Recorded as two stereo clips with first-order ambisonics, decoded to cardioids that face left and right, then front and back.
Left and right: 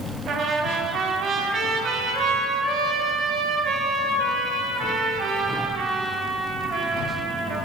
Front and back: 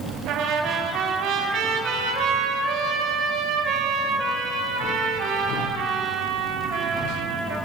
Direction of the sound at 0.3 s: 140° right.